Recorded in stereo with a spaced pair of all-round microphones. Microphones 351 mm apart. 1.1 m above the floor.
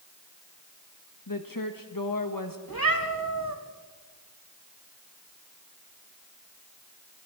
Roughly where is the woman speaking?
Left.